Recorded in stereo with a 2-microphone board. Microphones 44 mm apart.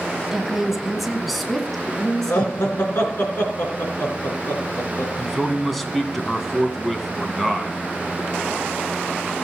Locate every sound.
0.3 s a woman speaking: 15° right (ahead or behind), 1.2 m; by 2.8 s 10° left (ahead or behind), 3 m
2.3 s laughter: 60° left (ahead or behind), 3.5 m
5.2 s a man speaking: centre (ahead or behind), 1.9 m